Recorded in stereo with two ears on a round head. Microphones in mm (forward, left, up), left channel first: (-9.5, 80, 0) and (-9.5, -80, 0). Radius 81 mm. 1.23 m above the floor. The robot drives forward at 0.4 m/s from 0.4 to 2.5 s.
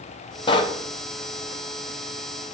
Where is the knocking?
30° left (ahead or behind), 0.8 m; by 0.8 s 25° left (ahead or behind), 0.9 m.